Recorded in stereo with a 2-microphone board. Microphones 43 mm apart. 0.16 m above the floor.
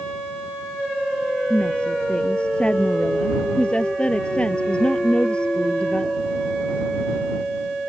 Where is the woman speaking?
25° left (ahead or behind).